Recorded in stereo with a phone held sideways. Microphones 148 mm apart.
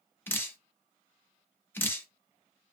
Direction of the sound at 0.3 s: 15° left (ahead or behind).